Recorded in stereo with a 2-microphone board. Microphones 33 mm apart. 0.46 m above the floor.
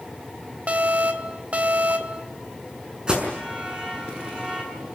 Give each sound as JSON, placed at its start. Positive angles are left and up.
{"t": 0.7, "sound": "an alarm", "side_deg": -40, "distance_m": 1.9}
{"t": 3.1, "sound": "an alarm", "side_deg": -25, "distance_m": 6.0}